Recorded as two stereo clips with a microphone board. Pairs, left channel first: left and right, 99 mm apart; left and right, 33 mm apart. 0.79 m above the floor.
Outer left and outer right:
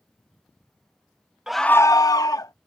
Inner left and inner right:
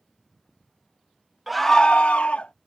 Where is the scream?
5° right (ahead or behind); by 2.5 s 35° left (ahead or behind).